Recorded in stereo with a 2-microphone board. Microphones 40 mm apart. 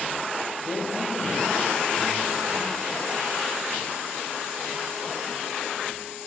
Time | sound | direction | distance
0.7 | a man speaking | 15° left (ahead or behind) | 2.0 m